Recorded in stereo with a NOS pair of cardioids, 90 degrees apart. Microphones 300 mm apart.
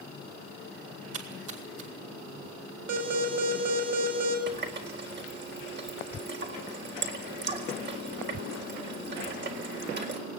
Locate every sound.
1.1 s a splash: 50° right, 5 m
2.9 s an alarm: 60° right, 6.5 m
4.5 s a running tap: 35° right, 4 m